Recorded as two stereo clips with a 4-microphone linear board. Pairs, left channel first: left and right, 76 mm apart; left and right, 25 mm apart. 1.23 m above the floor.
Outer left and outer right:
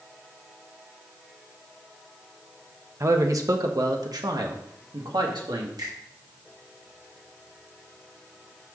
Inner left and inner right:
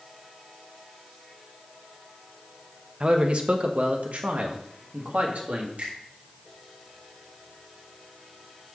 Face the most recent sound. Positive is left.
turn(degrees=-70)  # may be behind; listen again after turning